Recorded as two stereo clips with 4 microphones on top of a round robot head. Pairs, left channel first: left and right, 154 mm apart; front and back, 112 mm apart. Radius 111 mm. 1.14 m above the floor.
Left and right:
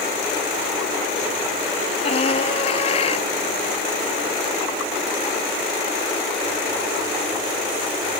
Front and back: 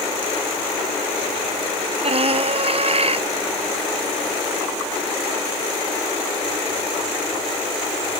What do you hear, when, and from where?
2.0 s a scream: 150° left